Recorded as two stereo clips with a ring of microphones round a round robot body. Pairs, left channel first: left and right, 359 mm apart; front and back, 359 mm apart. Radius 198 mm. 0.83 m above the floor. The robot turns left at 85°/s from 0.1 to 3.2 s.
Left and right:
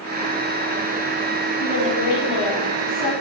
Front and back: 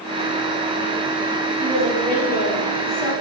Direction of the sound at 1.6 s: 145° left.